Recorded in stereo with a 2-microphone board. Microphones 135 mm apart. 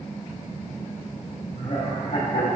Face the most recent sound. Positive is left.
turn(degrees=60)  # may be behind; listen again after turning